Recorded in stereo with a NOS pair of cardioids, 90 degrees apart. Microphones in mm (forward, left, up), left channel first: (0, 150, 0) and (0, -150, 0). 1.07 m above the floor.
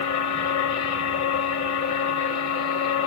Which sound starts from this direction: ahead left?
A machine running, at 0.0 s.